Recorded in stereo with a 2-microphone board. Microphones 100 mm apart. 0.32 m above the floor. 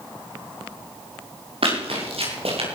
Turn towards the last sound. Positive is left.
turn(degrees=-75)  # may be behind; listen again after turning